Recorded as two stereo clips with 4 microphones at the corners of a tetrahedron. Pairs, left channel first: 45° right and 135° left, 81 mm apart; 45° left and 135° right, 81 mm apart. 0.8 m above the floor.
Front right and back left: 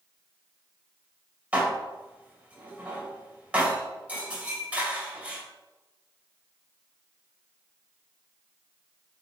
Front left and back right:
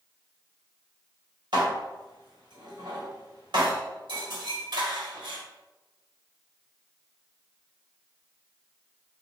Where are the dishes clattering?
150° right, 2 m.